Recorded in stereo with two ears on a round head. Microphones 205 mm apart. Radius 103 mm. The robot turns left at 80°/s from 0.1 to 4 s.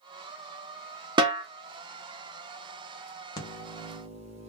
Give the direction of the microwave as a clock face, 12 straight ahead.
11 o'clock.